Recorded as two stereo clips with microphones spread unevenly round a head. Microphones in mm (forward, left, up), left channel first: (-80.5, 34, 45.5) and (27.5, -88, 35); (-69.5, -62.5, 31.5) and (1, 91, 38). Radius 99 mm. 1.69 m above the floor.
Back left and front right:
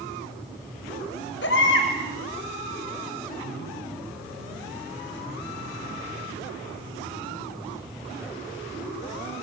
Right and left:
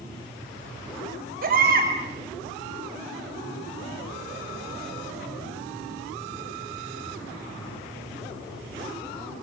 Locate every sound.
1.4 s a baby crying: 100° left, 6.5 m